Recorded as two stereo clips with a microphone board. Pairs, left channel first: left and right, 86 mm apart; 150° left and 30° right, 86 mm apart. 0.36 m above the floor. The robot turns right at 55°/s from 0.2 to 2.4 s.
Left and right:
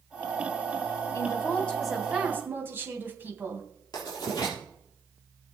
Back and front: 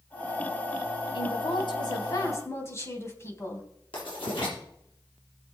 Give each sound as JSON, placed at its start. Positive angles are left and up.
{"t": 1.1, "sound": "a woman speaking", "azimuth_deg": 135, "distance_m": 2.5}
{"t": 3.9, "sound": "writing", "azimuth_deg": 135, "distance_m": 6.0}